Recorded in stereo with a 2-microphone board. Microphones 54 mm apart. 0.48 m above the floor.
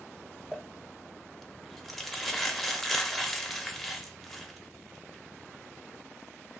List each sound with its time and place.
0.5 s crumpling: 5° left (ahead or behind), 0.5 m